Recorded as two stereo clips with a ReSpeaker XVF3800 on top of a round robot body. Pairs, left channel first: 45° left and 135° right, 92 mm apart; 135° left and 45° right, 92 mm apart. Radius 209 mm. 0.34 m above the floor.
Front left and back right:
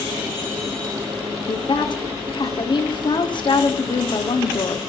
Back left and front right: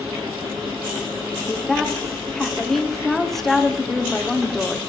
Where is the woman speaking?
50° left, 1.3 m.